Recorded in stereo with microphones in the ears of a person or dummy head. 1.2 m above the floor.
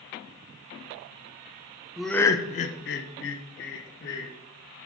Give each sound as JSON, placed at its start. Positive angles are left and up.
{"t": 2.0, "sound": "laughter", "side_deg": 0, "distance_m": 0.6}